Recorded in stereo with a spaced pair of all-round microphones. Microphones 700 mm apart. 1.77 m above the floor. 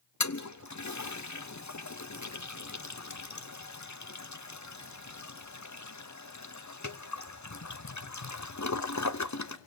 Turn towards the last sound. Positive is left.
turn(degrees=25)  # may be behind; listen again after turning